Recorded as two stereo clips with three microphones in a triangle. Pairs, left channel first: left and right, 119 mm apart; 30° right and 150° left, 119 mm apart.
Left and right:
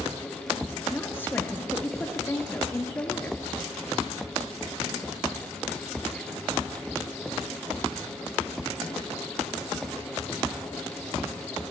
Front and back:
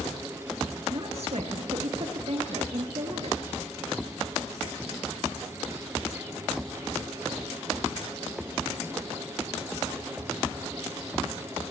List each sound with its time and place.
0.9 s a woman speaking: 160° left, 2.5 m